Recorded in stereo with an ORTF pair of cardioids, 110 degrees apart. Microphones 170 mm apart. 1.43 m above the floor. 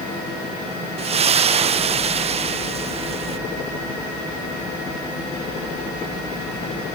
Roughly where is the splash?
Ahead right.